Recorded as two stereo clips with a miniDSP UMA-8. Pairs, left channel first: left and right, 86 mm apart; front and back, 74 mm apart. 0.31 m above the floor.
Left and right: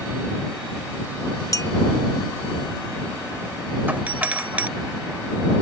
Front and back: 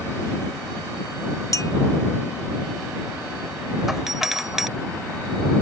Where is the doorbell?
105° right.